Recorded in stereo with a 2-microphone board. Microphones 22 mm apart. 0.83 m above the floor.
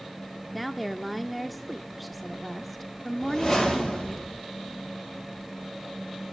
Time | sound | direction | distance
0.5 | a woman speaking | centre (ahead or behind) | 0.5 m
3.2 | a whoosh | 20° left (ahead or behind) | 6 m